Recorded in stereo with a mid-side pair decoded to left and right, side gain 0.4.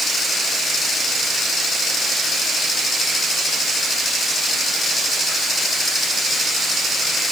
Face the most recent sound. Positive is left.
No sound to turn to.